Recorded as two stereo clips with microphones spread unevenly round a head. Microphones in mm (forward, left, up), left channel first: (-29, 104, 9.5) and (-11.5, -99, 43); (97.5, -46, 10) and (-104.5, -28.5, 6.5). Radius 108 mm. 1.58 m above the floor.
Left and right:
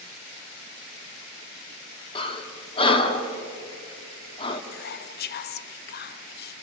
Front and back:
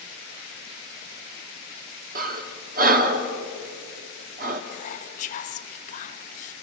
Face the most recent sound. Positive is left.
turn(degrees=55)